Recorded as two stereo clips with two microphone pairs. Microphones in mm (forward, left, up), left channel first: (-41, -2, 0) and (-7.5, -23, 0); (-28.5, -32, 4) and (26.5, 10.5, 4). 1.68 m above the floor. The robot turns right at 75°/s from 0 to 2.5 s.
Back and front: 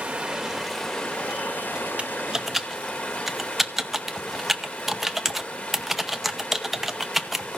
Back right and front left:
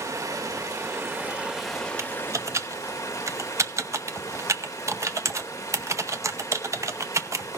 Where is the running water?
5° left, 1.4 m; by 7.6 s 170° right, 1.4 m.